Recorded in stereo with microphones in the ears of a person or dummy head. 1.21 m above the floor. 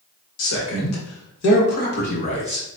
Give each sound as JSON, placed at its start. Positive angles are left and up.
{"t": 0.4, "sound": "a man speaking", "side_deg": 75, "distance_m": 1.1}